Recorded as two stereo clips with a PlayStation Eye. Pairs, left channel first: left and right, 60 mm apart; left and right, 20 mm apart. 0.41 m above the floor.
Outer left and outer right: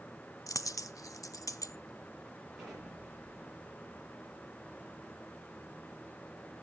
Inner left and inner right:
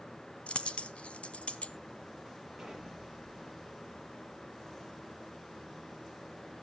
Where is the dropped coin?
70° left (ahead or behind), 0.7 m.